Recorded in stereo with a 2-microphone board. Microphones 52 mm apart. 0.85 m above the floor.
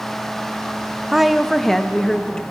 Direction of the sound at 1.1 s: 5° right (ahead or behind).